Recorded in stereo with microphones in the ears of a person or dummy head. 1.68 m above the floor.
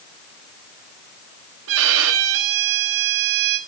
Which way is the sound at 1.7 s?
60° right (ahead or behind).